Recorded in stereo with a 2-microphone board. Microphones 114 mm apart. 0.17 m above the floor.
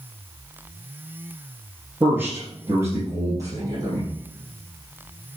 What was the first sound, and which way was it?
A man speaking, 15° right (ahead or behind).